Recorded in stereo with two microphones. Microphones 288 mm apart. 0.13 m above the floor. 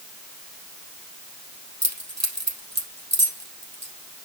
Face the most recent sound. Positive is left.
turn(degrees=-65)  # may be behind; listen again after turning